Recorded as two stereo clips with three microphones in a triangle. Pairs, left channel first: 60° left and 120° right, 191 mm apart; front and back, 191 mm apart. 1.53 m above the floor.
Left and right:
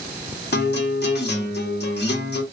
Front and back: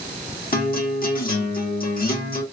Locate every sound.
0.5 s a guitar: 35° left, 1.2 m